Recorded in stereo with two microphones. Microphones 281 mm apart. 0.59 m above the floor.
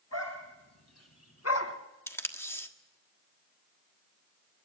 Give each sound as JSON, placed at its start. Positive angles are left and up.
{"t": 0.1, "sound": "a dog barking", "side_deg": 65, "distance_m": 3.5}
{"t": 2.1, "sound": "tape being pulled", "side_deg": 10, "distance_m": 1.4}